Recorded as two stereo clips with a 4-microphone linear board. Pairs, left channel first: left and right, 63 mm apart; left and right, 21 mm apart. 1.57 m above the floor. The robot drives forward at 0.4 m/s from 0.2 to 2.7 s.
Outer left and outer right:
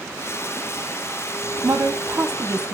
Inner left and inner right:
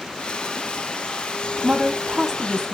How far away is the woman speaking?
About 0.8 m.